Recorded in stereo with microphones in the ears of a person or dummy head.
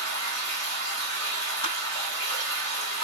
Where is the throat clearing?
No throat clearing in this recording.